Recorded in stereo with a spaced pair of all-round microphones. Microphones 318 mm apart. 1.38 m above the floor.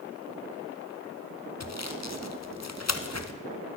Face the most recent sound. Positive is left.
turn(degrees=55)  # may be behind; listen again after turning